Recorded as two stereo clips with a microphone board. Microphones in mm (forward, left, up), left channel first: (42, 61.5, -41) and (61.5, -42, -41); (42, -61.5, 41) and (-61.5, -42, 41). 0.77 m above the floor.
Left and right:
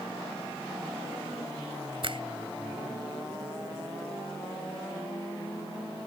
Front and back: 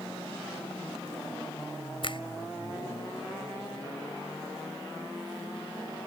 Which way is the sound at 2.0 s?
45° right.